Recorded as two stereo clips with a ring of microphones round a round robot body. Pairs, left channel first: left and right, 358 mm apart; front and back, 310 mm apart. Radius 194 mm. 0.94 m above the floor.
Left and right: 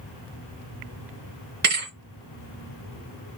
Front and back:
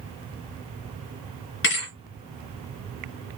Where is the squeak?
No squeak in this recording.